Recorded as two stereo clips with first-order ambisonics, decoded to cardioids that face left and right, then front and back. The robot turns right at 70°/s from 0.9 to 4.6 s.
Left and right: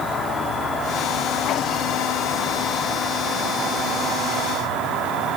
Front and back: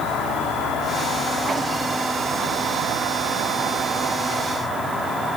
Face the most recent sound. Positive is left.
turn(degrees=-90)